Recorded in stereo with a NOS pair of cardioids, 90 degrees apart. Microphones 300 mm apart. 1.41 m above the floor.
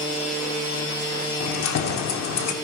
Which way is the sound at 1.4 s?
65° left.